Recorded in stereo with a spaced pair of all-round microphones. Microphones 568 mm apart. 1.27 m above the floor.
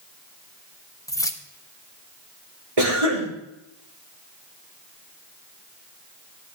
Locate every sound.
1.1 s keys jangling: 5° left (ahead or behind), 1.0 m
2.8 s a cough: 85° right, 4 m